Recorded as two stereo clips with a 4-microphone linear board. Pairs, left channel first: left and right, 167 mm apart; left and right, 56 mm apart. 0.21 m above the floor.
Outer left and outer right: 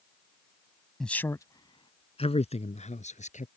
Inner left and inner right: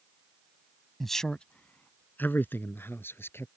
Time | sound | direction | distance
1.0 | a man speaking | 5° left (ahead or behind) | ?